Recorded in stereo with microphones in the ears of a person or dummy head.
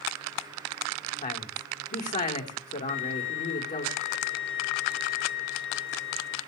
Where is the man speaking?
30° left (ahead or behind), 4.5 m.